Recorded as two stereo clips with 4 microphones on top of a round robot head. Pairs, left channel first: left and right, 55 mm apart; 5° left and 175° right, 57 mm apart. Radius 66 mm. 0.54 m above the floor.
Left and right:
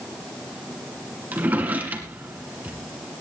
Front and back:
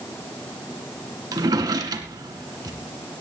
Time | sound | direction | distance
1.3 | a drawer | 155° right | 2.5 m